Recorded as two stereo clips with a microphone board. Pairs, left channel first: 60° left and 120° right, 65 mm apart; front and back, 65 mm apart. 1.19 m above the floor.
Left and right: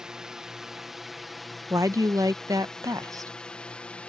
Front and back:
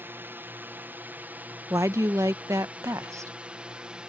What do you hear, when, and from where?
0.0 s a drone: 170° left; by 4.1 s 115° left
1.7 s a woman speaking: 145° right